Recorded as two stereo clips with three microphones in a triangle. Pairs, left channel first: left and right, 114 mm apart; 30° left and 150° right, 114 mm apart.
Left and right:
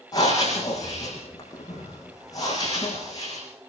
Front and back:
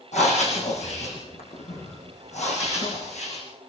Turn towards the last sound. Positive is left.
turn(degrees=35)